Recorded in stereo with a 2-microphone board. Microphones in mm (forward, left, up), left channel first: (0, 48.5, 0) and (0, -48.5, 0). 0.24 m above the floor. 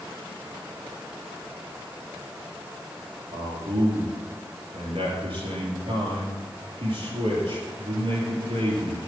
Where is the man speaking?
75° right (ahead or behind), 4.5 m.